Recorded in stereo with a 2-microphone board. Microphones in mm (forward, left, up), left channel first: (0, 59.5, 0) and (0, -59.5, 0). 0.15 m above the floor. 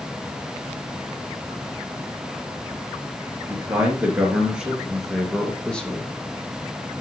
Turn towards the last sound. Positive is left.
turn(degrees=15)  # may be behind; listen again after turning